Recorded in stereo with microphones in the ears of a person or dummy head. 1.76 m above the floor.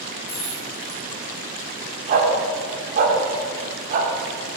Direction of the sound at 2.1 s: 40° right (ahead or behind).